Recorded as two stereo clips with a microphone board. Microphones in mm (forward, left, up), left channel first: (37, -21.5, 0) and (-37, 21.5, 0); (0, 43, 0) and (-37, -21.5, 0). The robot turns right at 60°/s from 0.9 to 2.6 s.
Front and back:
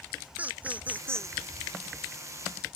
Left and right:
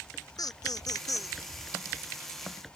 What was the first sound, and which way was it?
Laughter, 80° left.